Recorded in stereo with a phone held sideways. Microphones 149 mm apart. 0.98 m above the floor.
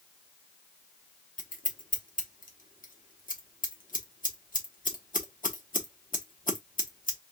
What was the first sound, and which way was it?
Scissors, 65° left (ahead or behind).